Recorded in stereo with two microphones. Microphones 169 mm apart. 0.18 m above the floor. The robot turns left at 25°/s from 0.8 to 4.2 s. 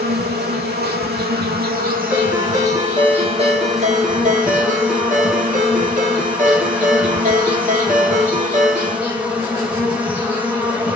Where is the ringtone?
10° right, 1.7 m; by 9.0 s 65° right, 1.7 m.